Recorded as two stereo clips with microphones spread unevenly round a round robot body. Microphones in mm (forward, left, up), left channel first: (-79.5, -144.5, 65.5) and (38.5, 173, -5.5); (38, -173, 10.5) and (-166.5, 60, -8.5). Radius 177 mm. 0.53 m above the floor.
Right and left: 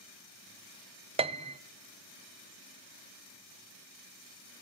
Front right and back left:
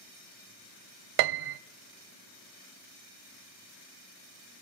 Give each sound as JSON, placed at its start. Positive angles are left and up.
{"t": 1.2, "sound": "a piano", "azimuth_deg": 150, "distance_m": 0.6}